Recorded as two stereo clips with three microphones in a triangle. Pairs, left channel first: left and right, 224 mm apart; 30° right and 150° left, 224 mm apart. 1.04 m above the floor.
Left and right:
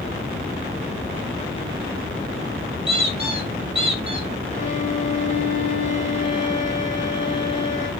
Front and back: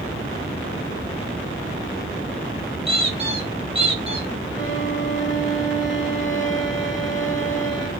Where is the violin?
140° left, 1.3 m.